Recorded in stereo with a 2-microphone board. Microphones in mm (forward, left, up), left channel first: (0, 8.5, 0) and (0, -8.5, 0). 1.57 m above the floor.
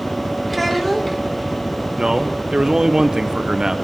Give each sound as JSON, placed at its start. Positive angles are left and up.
{"t": 0.5, "sound": "a child speaking", "side_deg": 0, "distance_m": 1.7}
{"t": 2.0, "sound": "a man speaking", "side_deg": -35, "distance_m": 0.8}